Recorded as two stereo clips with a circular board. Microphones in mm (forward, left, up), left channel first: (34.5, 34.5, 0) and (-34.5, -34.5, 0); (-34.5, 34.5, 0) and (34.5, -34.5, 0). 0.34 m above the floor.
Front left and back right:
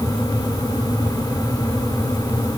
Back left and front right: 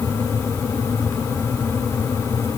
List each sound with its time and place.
Only background noise.